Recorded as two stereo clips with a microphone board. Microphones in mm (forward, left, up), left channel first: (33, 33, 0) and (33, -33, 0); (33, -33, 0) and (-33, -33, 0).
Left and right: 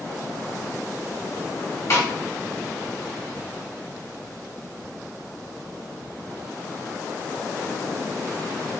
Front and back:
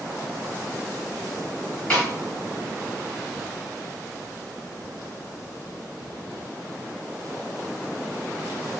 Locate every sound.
1.9 s a snare drum: 70° left, 1.8 m